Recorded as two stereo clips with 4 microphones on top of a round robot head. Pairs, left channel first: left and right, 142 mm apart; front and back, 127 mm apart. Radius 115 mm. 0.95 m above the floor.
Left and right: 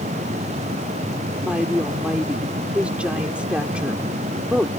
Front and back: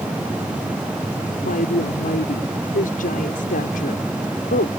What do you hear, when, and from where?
1.4 s a woman speaking: 10° right